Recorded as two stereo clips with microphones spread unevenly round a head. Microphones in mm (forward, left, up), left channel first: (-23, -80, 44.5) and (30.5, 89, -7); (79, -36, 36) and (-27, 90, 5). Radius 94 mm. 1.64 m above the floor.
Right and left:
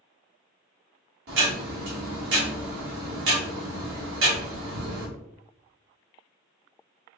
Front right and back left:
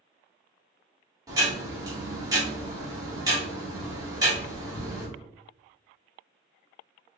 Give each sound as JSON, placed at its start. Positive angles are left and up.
{"t": 1.3, "sound": "ticking", "azimuth_deg": 60, "distance_m": 1.8}